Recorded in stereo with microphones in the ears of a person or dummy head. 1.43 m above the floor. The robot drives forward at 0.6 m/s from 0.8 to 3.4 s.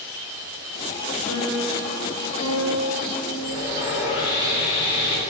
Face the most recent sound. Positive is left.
turn(degrees=30)  # may be behind; listen again after turning